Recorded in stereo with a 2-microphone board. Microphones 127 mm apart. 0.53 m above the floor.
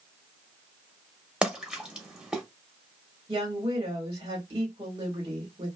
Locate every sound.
1.4 s a splash: 5° right (ahead or behind), 0.8 m
3.3 s a woman speaking: 40° right (ahead or behind), 1.6 m